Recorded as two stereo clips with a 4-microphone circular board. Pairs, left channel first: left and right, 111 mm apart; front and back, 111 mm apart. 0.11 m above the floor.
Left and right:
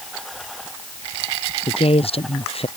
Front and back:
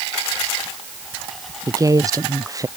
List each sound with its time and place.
1.7 s a woman speaking: 120° left